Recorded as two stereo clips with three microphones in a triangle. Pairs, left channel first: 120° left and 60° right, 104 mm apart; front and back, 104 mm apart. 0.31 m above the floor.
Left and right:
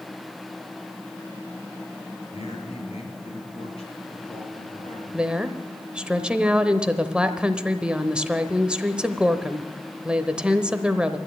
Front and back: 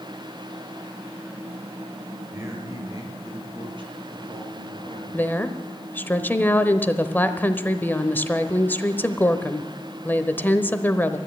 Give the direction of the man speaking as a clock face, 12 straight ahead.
8 o'clock.